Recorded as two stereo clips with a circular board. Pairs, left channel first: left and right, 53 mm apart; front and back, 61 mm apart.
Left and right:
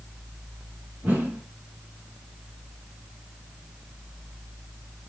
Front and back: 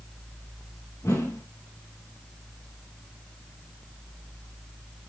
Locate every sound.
1.0 s a whoosh: 35° right, 7.5 m